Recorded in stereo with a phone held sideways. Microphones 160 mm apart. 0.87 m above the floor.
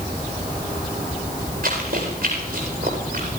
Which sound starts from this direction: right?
Running footsteps, at 1.6 s.